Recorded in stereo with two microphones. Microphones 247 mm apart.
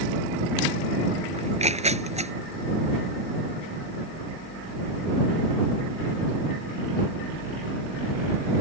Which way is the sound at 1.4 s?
25° right (ahead or behind).